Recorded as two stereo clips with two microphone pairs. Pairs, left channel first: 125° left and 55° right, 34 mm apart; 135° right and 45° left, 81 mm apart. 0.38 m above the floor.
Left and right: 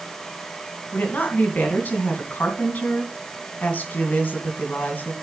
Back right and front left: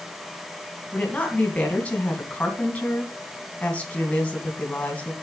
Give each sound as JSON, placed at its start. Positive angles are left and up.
{"t": 0.9, "sound": "a woman speaking", "azimuth_deg": 150, "distance_m": 2.5}